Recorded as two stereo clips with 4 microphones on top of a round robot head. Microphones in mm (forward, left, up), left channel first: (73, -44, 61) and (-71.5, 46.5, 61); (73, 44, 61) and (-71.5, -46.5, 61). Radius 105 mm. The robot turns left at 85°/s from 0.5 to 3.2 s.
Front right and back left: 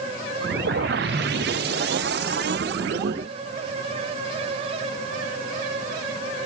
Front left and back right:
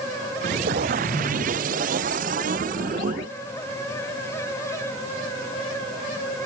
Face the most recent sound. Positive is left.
turn(degrees=-70)